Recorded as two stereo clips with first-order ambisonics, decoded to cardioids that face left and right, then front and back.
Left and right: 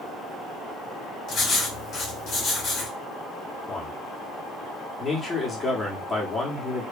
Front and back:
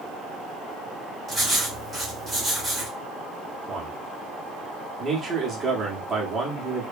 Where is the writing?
100° left, 1.2 m.